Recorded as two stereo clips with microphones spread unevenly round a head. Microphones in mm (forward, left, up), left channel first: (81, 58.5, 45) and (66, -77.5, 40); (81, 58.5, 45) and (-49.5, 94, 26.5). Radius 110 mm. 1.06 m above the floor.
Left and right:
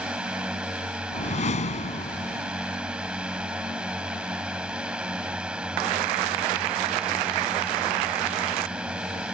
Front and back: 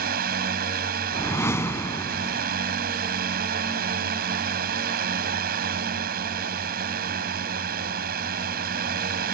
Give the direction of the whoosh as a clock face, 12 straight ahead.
10 o'clock.